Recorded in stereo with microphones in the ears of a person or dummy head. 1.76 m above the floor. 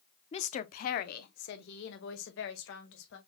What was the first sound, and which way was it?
A woman speaking, 30° left (ahead or behind).